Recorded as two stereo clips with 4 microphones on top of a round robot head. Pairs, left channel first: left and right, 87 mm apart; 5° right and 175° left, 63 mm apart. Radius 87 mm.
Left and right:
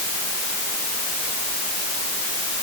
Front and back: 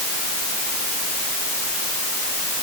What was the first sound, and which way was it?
Only background noise.